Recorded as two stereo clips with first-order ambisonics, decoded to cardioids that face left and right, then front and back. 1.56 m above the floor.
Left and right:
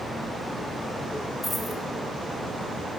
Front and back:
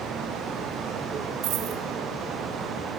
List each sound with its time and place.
1.4 s a dropped coin: 175° left, 2.5 m